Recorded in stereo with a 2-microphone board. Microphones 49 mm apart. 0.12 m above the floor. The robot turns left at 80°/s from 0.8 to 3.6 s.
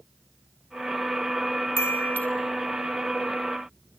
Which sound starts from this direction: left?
A chime, at 1.8 s.